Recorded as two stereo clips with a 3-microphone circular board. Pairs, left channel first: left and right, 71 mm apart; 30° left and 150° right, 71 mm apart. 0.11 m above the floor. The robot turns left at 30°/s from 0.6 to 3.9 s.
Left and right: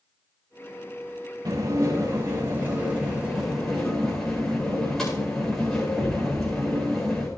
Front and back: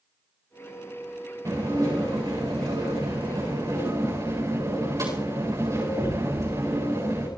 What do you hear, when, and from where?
1.4 s dishes clattering: 115° right, 8 m; by 7.3 s 175° left, 8 m